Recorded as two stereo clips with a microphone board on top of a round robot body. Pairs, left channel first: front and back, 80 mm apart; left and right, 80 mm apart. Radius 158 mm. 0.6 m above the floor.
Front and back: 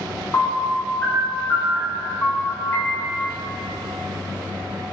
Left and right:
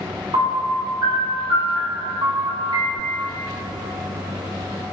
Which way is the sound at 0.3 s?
60° right.